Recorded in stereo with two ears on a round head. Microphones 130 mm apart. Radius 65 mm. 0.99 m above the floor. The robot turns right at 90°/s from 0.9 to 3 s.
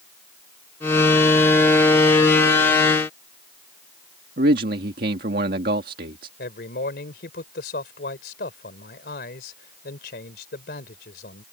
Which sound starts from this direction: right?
A man speaking, at 4.4 s.